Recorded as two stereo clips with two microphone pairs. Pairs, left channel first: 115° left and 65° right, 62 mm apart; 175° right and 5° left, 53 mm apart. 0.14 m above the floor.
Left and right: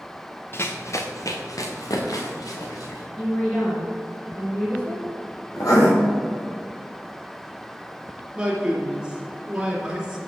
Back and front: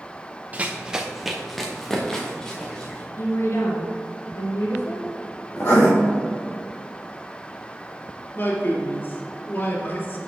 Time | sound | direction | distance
0.5 | running footsteps | 65° left | 1.0 m
3.2 | a woman speaking | 175° left | 2.5 m
5.6 | writing | 140° left | 3 m
8.3 | a man speaking | 140° right | 2 m